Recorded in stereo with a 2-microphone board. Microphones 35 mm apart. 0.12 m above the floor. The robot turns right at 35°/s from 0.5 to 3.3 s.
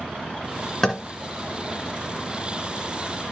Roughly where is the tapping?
Centre.